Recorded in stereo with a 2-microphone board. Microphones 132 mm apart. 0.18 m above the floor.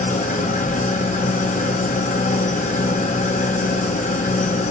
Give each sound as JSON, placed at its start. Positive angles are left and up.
{"t": 0.0, "sound": "an engine running", "side_deg": 80, "distance_m": 1.8}